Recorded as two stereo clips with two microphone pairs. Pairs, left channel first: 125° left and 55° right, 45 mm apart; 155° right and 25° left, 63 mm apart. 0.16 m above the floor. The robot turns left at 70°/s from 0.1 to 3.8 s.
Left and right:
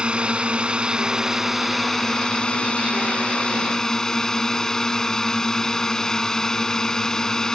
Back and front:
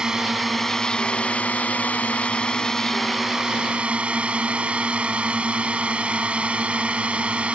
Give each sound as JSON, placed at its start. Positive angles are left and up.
{"t": 0.0, "sound": "a drone", "azimuth_deg": -35}